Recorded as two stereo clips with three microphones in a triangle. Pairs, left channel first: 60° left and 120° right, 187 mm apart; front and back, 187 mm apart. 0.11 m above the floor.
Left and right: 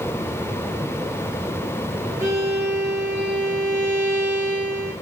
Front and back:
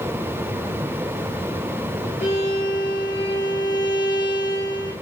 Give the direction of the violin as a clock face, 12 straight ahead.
1 o'clock.